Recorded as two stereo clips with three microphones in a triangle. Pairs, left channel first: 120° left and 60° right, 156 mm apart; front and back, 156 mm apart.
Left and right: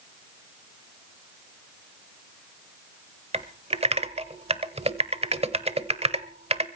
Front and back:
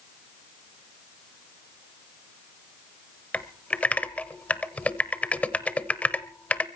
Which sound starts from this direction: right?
Typing on a keyboard, at 3.3 s.